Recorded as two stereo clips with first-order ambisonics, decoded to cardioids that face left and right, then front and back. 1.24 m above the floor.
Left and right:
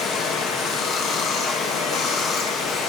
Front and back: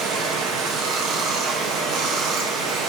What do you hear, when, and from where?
0.0 s running water: 140° left, 0.9 m